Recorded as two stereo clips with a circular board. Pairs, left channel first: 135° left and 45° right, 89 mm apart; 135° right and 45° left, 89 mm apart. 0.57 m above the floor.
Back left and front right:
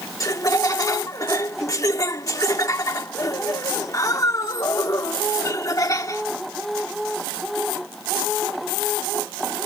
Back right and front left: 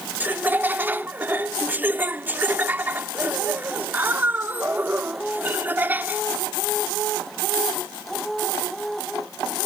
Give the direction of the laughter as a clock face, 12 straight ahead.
9 o'clock.